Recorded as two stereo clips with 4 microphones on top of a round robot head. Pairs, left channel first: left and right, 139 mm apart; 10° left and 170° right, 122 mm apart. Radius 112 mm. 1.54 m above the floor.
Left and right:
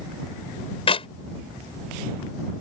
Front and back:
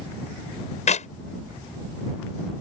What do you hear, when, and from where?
0.9 s a clap: 40° left